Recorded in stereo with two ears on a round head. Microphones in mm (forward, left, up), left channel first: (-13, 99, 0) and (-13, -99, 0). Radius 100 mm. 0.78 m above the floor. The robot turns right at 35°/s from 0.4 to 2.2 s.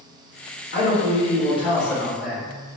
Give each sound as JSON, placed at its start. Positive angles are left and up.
{"t": 0.7, "sound": "a man speaking", "azimuth_deg": 120, "distance_m": 1.9}